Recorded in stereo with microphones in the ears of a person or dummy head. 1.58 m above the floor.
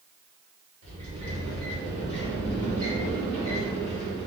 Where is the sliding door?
55° right (ahead or behind), 1.7 m.